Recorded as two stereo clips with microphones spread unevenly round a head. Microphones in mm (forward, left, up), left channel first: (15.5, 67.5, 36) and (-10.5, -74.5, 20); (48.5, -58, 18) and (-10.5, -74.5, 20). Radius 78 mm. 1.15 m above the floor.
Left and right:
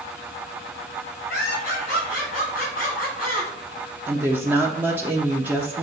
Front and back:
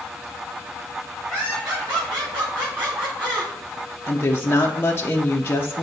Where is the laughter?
115° left, 3.5 m.